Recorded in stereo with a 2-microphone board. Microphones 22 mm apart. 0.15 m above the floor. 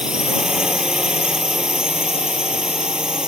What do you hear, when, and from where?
0.0 s a drone: 40° right (ahead or behind)